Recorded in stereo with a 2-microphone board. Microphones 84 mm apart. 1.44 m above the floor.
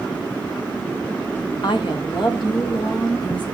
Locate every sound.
1.6 s a woman speaking: 70° left (ahead or behind), 1.4 m; by 3.5 s 60° left (ahead or behind), 3 m